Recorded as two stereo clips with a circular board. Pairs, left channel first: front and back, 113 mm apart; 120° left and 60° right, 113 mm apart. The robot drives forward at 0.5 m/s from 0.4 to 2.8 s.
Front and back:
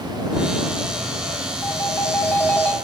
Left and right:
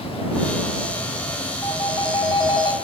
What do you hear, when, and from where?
1.6 s a phone ringing: 65° left, 3 m; by 2.7 s 75° left, 2.5 m